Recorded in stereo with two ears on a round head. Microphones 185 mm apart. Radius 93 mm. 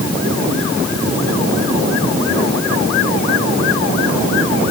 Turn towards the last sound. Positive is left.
No sound to turn to.